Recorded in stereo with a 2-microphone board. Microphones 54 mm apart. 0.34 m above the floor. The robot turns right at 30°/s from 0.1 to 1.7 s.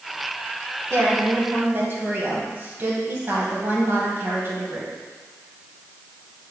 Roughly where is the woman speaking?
Right.